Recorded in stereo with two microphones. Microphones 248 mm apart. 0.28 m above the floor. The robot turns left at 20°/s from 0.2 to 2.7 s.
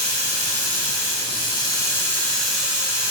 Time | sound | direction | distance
0.0 | running water | 45° left | 0.9 m